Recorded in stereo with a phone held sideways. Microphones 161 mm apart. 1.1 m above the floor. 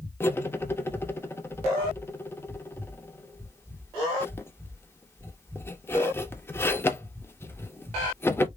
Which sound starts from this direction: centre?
Cutlery clinking, at 0.2 s.